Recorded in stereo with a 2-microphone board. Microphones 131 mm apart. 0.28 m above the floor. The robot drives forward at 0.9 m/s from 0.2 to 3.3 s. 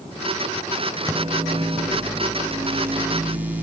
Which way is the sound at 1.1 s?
25° right (ahead or behind).